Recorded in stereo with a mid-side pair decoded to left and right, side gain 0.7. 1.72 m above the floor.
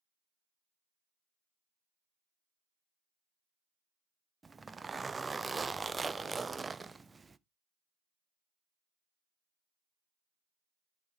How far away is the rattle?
No rattle in this recording.